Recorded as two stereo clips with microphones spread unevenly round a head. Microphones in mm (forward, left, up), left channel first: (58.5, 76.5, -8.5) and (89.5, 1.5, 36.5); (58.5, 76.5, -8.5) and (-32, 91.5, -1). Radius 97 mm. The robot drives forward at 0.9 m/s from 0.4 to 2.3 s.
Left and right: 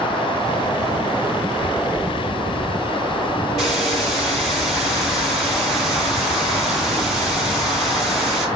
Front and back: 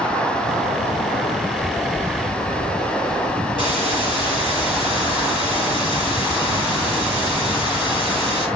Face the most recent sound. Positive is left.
turn(degrees=-100)